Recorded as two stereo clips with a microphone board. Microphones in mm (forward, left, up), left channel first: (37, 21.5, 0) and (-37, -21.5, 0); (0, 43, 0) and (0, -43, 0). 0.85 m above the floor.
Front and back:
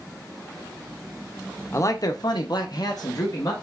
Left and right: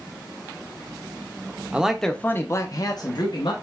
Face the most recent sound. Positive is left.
turn(degrees=70)